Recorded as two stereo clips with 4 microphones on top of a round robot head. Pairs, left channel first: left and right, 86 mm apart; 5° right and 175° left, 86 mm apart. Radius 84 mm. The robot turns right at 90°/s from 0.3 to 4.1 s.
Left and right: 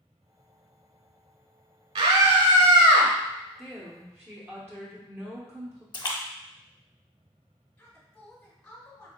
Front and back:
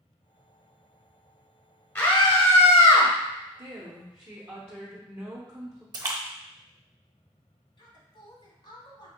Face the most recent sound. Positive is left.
turn(degrees=15)